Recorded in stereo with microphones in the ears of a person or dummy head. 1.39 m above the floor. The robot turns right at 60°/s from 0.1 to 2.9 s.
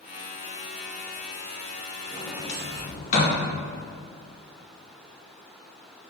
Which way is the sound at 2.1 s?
5° right (ahead or behind).